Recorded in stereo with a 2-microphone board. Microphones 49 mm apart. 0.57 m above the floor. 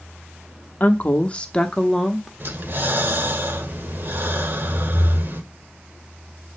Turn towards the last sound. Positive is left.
turn(degrees=-45)  # may be behind; listen again after turning